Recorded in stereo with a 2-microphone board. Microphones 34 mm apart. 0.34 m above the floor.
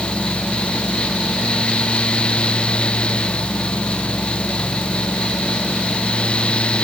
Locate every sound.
Only background noise.